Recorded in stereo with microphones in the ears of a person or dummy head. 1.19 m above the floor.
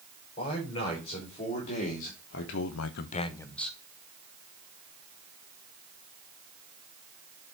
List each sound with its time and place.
0.4 s a man speaking: 35° left (ahead or behind), 4 m; by 3.8 s centre (ahead or behind), 1.4 m